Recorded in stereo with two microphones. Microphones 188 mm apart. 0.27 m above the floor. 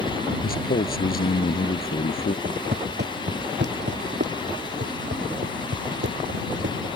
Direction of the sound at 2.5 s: 60° right (ahead or behind).